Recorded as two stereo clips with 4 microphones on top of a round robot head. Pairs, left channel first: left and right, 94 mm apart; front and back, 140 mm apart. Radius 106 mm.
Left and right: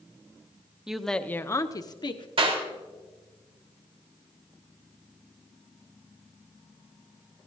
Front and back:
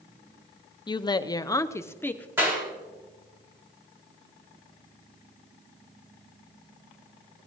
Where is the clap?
105° right, 4 m.